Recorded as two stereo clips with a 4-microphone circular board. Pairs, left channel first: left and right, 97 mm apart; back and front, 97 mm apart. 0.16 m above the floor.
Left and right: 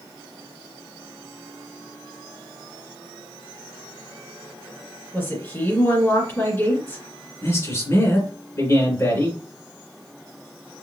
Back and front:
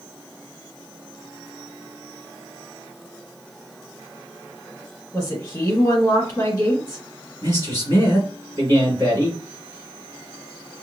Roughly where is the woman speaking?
Behind left.